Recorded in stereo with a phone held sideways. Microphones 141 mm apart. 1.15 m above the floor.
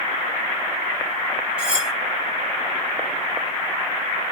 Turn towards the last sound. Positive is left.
turn(degrees=-5)  # may be behind; listen again after turning